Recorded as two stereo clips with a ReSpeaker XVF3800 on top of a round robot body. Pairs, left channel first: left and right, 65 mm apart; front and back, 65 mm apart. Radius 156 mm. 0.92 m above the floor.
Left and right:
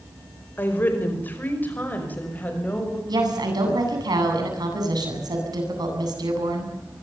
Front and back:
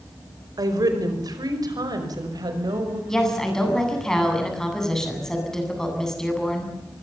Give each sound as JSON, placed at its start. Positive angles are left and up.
{"t": 0.6, "sound": "a woman speaking", "azimuth_deg": 155, "distance_m": 4.5}
{"t": 3.1, "sound": "a woman speaking", "azimuth_deg": -80, "distance_m": 8.5}